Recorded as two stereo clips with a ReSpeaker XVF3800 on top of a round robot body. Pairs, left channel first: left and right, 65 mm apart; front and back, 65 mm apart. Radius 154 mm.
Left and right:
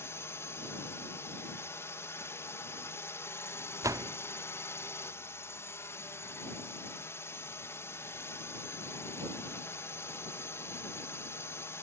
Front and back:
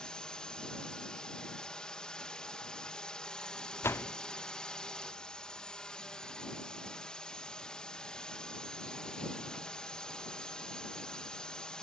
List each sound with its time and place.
0.0 s a drone: 70° left
3.8 s a door slam: 55° right